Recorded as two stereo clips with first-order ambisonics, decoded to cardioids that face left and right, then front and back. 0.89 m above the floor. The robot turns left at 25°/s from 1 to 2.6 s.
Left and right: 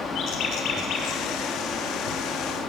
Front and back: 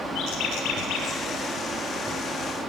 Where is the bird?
40° left, 6 m; by 1.2 s 35° left, 6 m.